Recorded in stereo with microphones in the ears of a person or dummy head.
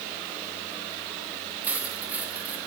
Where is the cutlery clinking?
10° right (ahead or behind), 5.5 m.